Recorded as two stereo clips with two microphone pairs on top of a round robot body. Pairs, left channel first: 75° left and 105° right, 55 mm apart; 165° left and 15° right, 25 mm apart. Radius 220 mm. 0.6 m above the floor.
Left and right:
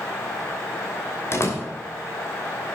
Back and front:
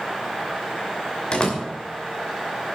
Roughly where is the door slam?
Behind left.